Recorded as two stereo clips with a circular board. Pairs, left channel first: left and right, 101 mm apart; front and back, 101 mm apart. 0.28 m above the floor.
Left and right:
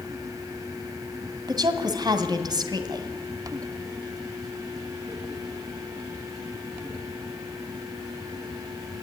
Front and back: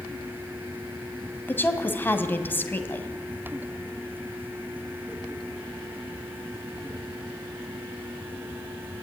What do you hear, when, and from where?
1.5 s a woman speaking: 65° right, 2 m